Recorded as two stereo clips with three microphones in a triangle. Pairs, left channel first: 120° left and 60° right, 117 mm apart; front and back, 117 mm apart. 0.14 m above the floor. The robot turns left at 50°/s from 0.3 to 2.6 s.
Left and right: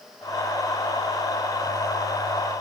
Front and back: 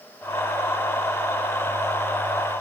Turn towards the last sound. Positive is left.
No sound to turn to.